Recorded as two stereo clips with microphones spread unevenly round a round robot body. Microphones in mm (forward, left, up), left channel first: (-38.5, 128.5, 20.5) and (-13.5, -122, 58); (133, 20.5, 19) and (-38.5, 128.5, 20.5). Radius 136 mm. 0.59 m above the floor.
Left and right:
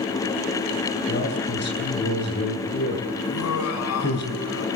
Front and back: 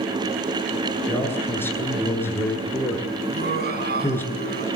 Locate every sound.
1.1 s a man speaking: 45° left, 9 m
3.2 s laughter: 115° left, 7.5 m